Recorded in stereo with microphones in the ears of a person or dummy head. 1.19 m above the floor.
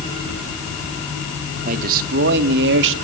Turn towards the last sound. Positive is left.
turn(degrees=-70)  # may be behind; listen again after turning